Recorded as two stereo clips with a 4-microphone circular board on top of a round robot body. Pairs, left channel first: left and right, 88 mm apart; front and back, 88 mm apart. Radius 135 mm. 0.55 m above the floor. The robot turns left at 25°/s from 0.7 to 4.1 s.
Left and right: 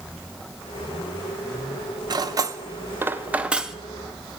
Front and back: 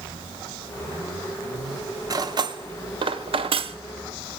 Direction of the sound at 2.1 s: 135° right.